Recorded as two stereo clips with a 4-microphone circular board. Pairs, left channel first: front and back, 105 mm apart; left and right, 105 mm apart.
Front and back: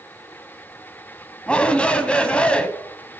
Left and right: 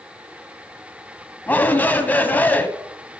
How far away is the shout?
About 1.1 m.